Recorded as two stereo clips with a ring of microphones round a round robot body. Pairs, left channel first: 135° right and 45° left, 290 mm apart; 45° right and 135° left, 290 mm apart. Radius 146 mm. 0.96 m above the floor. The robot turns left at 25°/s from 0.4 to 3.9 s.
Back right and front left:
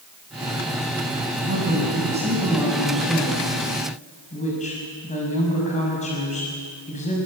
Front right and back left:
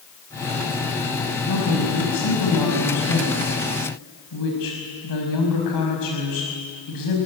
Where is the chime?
I don't hear a chime.